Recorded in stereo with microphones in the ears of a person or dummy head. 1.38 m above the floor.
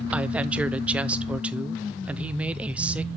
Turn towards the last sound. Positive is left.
turn(degrees=-5)  # may be behind; listen again after turning